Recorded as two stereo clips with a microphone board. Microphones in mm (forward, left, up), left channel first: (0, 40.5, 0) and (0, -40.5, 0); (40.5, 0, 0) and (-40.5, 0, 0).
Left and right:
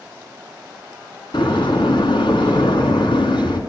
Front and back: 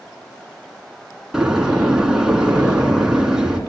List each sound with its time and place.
1.3 s a door slam: 95° left, 4 m